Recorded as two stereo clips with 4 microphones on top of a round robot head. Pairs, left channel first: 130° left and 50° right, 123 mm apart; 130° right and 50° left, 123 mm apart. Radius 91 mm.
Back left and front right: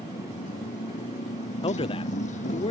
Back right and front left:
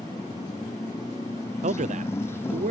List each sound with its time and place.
0.0 s a motorcycle: 165° left; by 2.7 s 155° left
1.6 s a man speaking: 80° left